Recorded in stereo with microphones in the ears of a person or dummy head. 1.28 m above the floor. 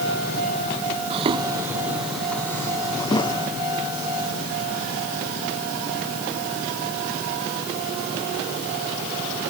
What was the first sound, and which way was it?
Footsteps, 35° right (ahead or behind).